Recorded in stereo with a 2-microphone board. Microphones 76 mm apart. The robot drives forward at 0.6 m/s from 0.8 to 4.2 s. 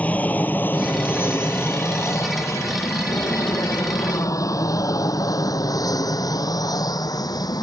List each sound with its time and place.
0.0 s an aircraft: 20° left (ahead or behind); by 7.6 s 60° left (ahead or behind)